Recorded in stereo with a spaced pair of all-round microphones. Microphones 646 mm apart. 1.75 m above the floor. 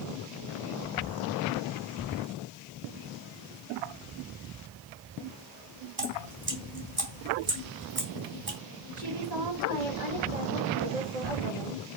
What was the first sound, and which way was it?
Dripping, 60° right (ahead or behind).